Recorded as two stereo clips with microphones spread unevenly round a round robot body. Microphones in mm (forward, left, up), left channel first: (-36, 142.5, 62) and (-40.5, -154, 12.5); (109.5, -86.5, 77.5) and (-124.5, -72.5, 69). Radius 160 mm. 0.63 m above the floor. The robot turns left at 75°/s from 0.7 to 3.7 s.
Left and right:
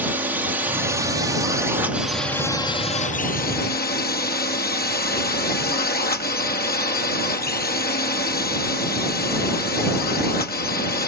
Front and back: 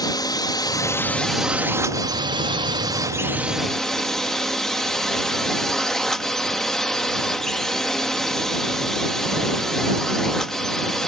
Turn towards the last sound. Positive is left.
turn(degrees=85)